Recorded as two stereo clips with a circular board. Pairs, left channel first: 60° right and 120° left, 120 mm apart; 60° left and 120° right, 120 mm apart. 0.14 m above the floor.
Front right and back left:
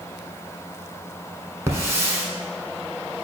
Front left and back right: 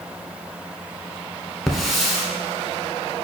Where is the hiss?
155° left, 0.8 m.